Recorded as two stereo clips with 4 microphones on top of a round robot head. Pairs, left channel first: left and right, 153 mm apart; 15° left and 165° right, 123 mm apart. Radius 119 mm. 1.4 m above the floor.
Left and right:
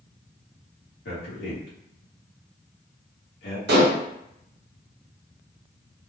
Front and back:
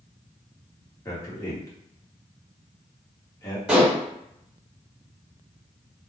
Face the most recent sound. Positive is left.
turn(degrees=-85)